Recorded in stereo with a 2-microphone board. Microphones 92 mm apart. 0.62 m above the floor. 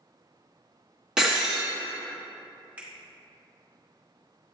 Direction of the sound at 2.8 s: 15° right (ahead or behind).